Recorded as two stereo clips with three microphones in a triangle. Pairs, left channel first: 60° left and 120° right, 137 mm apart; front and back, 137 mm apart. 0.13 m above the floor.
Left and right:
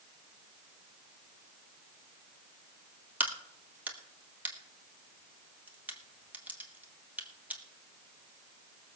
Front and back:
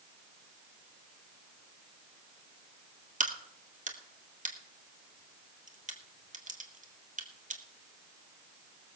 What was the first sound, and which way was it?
A crack, 160° left.